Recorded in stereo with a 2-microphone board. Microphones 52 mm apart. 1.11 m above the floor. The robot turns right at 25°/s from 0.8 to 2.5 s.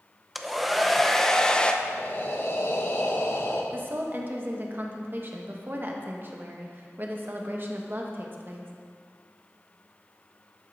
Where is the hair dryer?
Centre (ahead or behind), 0.6 m; by 1.7 s 20° left (ahead or behind), 0.6 m.